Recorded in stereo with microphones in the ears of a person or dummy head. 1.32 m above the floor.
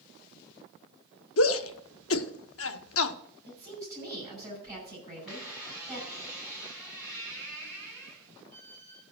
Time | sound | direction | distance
1.4 | a shout | 70° left (ahead or behind) | 0.8 m
3.5 | a woman speaking | 15° right (ahead or behind) | 8.5 m
5.3 | a squeak | 5° right (ahead or behind) | 8.5 m